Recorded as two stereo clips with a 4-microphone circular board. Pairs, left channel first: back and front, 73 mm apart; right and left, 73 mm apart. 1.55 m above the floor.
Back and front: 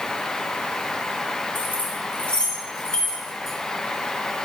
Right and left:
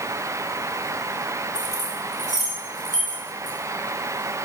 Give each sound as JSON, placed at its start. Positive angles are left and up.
{"t": 1.6, "sound": "keys jangling", "azimuth_deg": -120, "distance_m": 4.5}